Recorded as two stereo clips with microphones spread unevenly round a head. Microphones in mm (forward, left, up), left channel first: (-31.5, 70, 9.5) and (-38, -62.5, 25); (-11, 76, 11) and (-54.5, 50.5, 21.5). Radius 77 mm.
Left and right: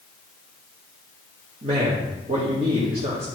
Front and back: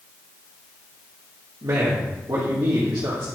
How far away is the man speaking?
About 1.9 m.